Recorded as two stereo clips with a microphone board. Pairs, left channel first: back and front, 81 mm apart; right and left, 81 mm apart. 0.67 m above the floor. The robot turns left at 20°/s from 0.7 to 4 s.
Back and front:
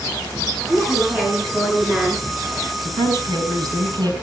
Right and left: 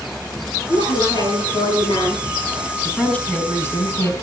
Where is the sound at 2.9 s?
15° right, 5 m; by 4.1 s 35° right, 5 m.